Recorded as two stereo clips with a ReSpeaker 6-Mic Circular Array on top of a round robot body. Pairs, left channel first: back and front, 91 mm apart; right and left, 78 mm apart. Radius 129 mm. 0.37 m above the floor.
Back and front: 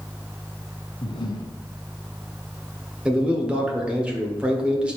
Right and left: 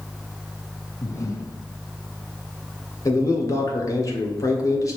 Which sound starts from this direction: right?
A man speaking, at 3.0 s.